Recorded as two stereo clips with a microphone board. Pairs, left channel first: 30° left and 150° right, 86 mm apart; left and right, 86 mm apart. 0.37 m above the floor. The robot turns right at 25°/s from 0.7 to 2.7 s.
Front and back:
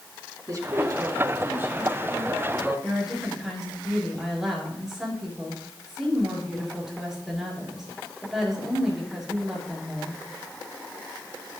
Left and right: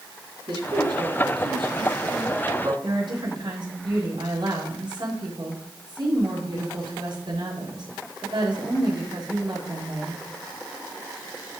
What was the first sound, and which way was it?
A man speaking, 105° right.